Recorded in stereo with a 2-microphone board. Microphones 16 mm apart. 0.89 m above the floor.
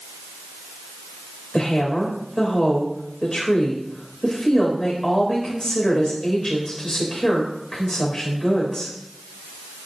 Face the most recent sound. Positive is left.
turn(degrees=55)  # may be behind; listen again after turning